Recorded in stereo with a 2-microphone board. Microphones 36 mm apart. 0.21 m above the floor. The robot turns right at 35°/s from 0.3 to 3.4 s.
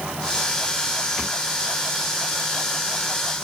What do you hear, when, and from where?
Only background noise.